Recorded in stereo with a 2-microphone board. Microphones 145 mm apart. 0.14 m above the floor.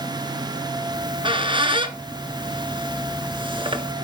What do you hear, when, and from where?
0.9 s a squeak: 35° right (ahead or behind), 1.0 m